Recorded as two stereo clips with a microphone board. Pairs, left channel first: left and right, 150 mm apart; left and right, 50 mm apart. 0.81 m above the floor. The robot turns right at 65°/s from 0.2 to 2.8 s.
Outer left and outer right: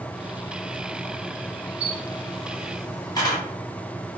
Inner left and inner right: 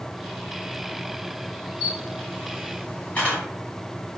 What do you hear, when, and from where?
1.8 s a camera shutter: 35° right (ahead or behind), 1.6 m; by 3.4 s 25° left (ahead or behind), 1.6 m